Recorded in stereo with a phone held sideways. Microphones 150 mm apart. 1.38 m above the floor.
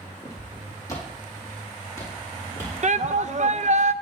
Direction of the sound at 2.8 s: 55° right (ahead or behind).